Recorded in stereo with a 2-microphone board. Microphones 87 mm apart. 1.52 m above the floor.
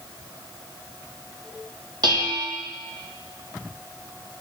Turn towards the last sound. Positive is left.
turn(degrees=-55)  # may be behind; listen again after turning